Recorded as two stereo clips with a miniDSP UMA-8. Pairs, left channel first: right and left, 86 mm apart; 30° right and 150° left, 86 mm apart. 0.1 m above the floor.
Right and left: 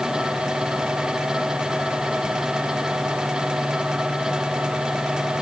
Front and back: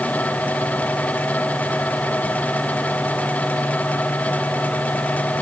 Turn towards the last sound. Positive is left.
No sound to turn to.